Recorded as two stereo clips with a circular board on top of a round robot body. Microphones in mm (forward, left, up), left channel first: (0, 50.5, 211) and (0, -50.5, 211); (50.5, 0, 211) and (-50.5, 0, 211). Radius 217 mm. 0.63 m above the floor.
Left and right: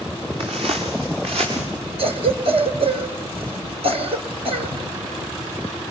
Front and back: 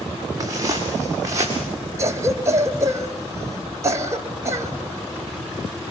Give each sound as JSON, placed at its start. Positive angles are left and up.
{"t": 0.4, "sound": "footsteps", "azimuth_deg": -120, "distance_m": 7.5}
{"t": 2.0, "sound": "a cough", "azimuth_deg": -115, "distance_m": 3.0}